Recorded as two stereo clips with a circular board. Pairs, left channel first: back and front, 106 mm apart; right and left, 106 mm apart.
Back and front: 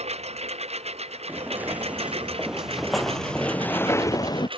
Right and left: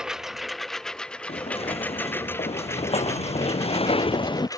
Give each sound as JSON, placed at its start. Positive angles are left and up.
{"t": 0.0, "sound": "a lawn mower", "azimuth_deg": 5}
{"t": 1.3, "sound": "footsteps", "azimuth_deg": -70}